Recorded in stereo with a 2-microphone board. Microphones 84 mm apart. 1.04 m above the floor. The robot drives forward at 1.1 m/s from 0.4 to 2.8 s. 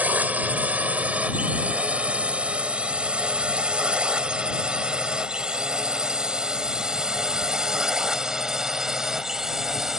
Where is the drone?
20° right (ahead or behind); by 10.0 s 5° right (ahead or behind).